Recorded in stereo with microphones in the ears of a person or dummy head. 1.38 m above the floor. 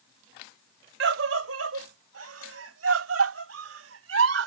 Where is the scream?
65° right (ahead or behind); by 4.5 s 85° right.